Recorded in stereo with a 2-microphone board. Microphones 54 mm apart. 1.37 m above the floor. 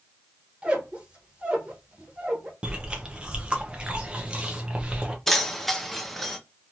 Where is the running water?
No running water in this recording.